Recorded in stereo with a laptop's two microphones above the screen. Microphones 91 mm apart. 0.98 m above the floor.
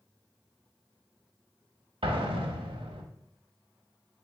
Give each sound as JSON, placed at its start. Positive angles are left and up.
{"t": 2.0, "sound": "an explosion", "side_deg": -70, "distance_m": 0.7}